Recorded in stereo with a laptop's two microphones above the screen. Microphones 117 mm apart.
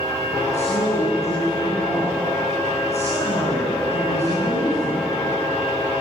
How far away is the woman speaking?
About 8.5 m.